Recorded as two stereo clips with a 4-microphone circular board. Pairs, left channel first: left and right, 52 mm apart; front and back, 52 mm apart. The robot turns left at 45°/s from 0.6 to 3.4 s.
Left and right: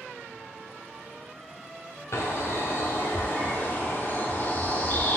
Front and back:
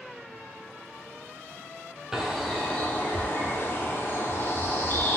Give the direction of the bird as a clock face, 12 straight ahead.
9 o'clock.